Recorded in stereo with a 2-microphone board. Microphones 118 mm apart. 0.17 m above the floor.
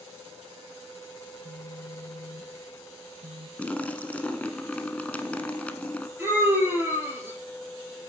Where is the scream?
15° right (ahead or behind), 3.5 m.